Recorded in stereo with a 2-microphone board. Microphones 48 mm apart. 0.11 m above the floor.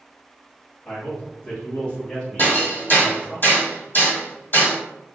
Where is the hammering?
45° left (ahead or behind), 1.8 m.